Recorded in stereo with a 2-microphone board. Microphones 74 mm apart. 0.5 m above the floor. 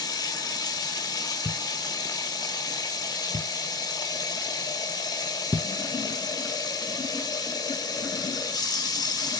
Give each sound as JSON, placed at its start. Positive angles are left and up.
{"t": 0.0, "sound": "running water", "side_deg": 60, "distance_m": 1.7}
{"t": 1.4, "sound": "a thud", "side_deg": -40, "distance_m": 0.5}